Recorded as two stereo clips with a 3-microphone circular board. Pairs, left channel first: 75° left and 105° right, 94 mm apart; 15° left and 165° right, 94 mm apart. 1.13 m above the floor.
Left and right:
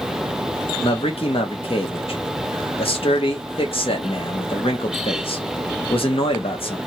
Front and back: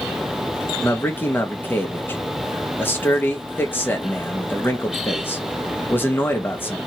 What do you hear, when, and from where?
0.8 s a man speaking: 85° left, 1.1 m